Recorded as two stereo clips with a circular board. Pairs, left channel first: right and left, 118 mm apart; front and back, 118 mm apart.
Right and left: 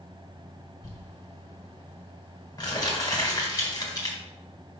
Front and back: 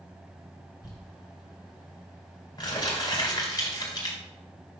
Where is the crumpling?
40° right, 2 m.